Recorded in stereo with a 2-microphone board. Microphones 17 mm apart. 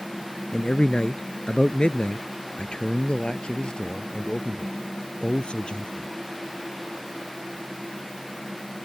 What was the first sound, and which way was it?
A man speaking, 65° left (ahead or behind).